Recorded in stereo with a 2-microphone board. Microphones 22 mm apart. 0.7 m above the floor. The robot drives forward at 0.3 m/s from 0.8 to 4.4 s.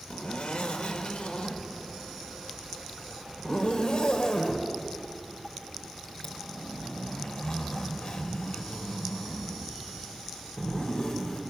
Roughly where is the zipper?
Left.